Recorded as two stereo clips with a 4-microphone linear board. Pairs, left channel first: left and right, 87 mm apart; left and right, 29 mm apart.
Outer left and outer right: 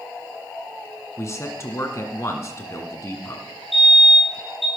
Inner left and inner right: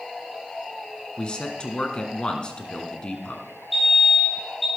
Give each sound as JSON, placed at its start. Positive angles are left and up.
{"t": 1.2, "sound": "a man speaking", "side_deg": 35, "distance_m": 1.9}
{"t": 3.7, "sound": "a fire alarm", "side_deg": 0, "distance_m": 8.0}